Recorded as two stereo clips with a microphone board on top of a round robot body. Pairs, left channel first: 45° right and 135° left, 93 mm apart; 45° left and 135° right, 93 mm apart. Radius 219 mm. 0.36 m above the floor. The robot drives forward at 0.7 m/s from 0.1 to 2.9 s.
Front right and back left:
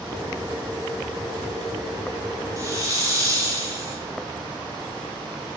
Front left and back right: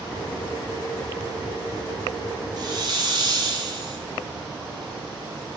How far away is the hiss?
About 1.5 m.